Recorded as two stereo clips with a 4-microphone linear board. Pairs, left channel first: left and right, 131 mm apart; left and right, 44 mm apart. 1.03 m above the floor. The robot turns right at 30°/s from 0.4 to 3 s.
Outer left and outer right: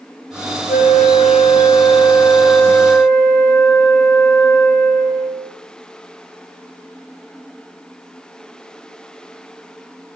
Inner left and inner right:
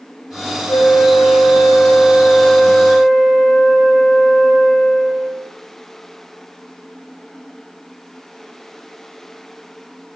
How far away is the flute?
About 0.8 m.